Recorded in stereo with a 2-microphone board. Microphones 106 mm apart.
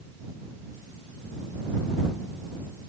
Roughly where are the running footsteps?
No running footsteps in this recording.